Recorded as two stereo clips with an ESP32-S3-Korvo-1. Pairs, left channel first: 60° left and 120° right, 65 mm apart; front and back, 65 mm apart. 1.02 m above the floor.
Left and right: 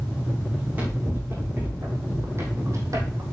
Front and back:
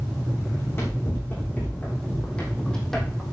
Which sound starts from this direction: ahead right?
Running footsteps, at 0.5 s.